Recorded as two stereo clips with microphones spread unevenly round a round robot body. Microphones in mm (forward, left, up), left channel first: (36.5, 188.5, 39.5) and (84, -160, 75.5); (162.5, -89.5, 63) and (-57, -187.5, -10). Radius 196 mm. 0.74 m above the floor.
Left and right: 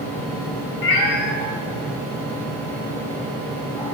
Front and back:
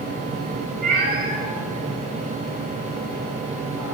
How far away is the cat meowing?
About 1.1 m.